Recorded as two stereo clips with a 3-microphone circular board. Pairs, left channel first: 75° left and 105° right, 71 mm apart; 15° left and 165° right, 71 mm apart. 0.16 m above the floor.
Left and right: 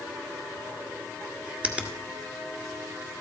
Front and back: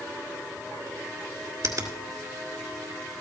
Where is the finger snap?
175° right, 1.6 m.